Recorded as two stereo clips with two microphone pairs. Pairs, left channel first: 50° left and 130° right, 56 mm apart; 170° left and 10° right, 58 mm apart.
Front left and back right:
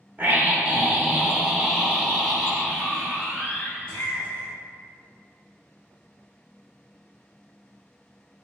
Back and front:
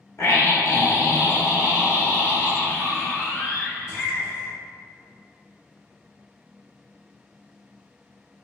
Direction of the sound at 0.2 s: 175° right.